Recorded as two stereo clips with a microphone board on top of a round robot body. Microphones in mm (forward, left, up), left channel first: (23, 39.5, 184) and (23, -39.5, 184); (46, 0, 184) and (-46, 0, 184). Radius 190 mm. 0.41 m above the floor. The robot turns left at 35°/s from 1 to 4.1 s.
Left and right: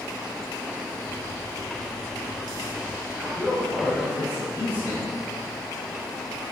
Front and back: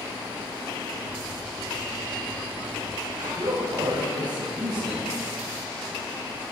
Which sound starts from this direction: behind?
A man speaking, at 3.2 s.